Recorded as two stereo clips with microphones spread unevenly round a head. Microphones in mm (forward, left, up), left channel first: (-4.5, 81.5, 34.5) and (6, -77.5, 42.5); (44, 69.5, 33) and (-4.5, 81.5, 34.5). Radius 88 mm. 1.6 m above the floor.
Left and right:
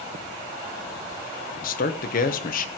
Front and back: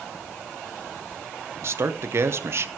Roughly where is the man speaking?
Behind left.